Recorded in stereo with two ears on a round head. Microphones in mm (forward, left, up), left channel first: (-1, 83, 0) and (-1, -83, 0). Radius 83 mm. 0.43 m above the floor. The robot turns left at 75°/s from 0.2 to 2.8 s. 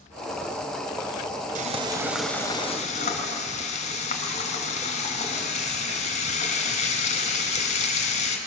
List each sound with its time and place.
1.6 s frying: 130° right, 3.5 m; by 8.4 s 135° left, 3.5 m